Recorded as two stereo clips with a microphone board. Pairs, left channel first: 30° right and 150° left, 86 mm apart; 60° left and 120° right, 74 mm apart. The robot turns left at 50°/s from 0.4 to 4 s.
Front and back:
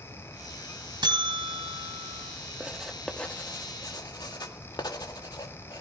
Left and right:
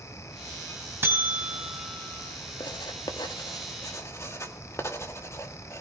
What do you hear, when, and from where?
1.0 s a buzzer: straight behind, 3 m; by 2.2 s 120° left, 3 m
2.6 s writing: 80° left, 1.8 m; by 5.8 s 10° left, 1.8 m